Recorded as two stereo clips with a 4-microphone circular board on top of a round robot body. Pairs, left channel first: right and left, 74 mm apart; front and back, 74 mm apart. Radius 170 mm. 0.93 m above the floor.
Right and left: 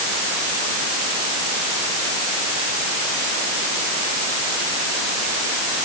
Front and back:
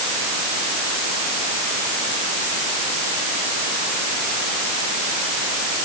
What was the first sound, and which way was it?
Only background noise.